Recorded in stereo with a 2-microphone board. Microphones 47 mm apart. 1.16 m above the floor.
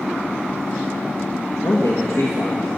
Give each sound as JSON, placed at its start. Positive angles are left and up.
{"t": 1.6, "sound": "a man speaking", "side_deg": 80, "distance_m": 1.4}